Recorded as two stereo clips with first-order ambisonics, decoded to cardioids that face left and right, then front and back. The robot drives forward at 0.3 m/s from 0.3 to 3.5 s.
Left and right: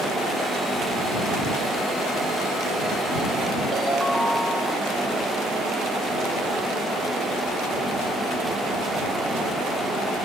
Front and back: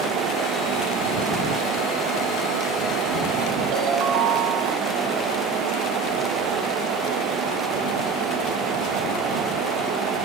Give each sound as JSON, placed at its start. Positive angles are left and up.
{"t": 3.7, "sound": "a ringtone", "azimuth_deg": -170, "distance_m": 1.3}